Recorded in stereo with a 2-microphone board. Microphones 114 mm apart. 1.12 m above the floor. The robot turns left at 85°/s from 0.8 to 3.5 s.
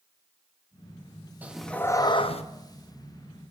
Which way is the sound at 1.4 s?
165° right.